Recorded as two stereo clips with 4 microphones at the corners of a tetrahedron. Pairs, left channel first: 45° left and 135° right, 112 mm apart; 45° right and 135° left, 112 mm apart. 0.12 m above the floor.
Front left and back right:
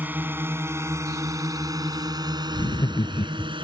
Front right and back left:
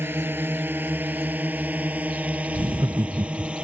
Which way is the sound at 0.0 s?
175° left.